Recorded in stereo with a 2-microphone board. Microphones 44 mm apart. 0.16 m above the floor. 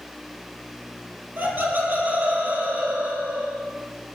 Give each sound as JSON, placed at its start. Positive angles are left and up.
{"t": 1.4, "sound": "laughter", "side_deg": -55, "distance_m": 5.5}